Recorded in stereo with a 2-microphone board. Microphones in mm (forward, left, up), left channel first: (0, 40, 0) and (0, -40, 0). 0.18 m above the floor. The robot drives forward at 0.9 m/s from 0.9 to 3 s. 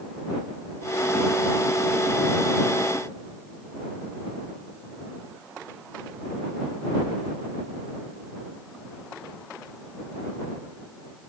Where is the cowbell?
I don't hear a cowbell.